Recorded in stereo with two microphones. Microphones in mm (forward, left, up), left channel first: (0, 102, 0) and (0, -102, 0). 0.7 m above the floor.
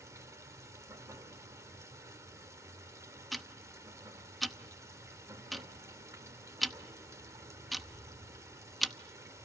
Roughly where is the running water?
Centre.